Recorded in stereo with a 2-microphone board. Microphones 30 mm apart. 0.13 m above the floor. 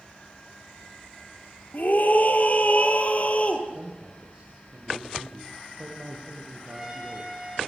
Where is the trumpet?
15° right (ahead or behind), 8 m.